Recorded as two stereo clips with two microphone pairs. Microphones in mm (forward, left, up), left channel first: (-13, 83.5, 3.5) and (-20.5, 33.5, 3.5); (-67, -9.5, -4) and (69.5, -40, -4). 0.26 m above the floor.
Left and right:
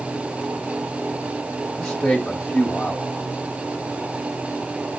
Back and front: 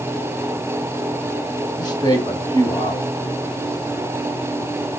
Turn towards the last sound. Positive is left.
turn(degrees=155)